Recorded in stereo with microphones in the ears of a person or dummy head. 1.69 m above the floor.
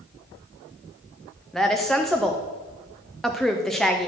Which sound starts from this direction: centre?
A woman speaking, at 1.5 s.